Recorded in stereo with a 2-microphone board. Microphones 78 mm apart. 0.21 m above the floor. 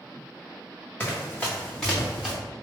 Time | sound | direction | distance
1.0 | running footsteps | 25° left (ahead or behind) | 1.8 m